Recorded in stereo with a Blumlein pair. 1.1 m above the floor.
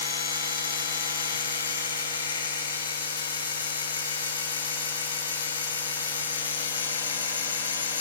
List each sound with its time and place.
0.0 s a machine running: 65° left, 5.5 m